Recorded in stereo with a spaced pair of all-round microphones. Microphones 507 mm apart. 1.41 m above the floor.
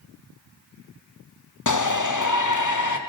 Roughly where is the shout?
Left.